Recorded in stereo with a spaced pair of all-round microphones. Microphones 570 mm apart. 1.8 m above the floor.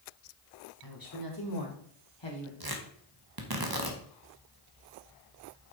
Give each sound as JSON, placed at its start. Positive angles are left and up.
{"t": 0.8, "sound": "a woman speaking", "side_deg": 35, "distance_m": 2.5}
{"t": 2.6, "sound": "tearing paper", "side_deg": -40, "distance_m": 1.3}